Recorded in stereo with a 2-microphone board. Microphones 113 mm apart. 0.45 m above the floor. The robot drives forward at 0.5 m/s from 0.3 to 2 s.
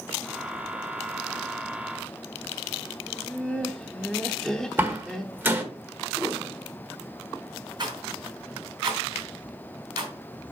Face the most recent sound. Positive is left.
turn(degrees=-40)  # may be behind; listen again after turning